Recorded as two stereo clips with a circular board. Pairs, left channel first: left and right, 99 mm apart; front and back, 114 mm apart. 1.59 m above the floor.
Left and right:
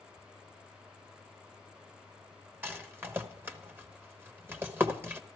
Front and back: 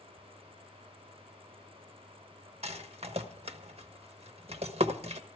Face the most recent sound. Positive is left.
turn(degrees=-160)